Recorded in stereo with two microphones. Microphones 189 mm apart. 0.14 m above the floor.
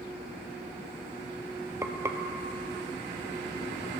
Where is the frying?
15° right (ahead or behind), 0.5 m.